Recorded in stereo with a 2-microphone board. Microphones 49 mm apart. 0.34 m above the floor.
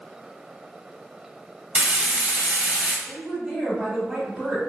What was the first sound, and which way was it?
Frying, 35° right (ahead or behind).